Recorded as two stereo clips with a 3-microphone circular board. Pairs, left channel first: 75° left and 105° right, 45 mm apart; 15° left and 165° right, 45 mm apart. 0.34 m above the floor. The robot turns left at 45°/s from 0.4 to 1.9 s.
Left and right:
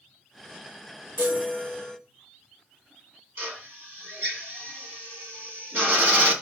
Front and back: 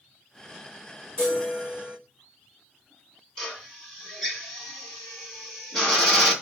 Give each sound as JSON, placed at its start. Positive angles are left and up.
{"t": 1.2, "sound": "a chime", "azimuth_deg": -55, "distance_m": 4.5}
{"t": 3.4, "sound": "a drill", "azimuth_deg": -70, "distance_m": 2.5}